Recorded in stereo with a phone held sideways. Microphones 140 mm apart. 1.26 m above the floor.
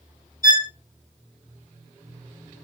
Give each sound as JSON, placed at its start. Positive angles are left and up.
{"t": 0.4, "sound": "a violin", "side_deg": 70, "distance_m": 1.4}